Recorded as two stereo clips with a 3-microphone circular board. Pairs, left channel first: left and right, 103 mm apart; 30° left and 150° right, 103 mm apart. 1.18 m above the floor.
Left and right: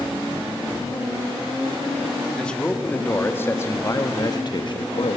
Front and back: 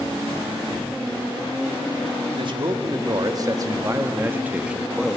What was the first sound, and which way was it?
A man speaking, 170° left.